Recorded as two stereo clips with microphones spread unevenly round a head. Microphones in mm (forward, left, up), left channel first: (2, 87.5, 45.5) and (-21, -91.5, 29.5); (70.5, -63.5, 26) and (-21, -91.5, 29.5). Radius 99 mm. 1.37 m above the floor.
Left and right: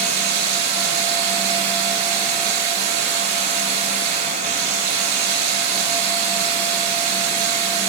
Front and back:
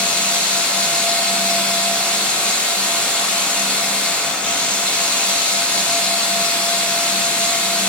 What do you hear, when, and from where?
0.0 s running water: 60° right, 8.5 m